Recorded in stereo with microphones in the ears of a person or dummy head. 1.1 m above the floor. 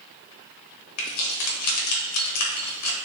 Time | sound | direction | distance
1.0 | keys jangling | 85° left | 0.9 m